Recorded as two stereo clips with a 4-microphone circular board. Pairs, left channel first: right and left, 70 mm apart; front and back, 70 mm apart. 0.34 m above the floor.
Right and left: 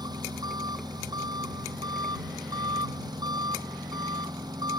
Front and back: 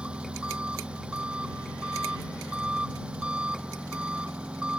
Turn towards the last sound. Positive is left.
turn(degrees=105)